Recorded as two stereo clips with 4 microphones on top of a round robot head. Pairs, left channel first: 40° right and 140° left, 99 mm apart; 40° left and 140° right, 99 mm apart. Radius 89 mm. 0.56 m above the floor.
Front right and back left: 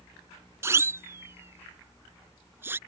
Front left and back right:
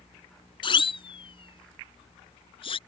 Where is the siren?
75° left.